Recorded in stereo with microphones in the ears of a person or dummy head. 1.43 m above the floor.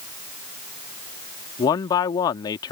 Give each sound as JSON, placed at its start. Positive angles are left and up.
{"t": 1.6, "sound": "a man speaking", "side_deg": 20}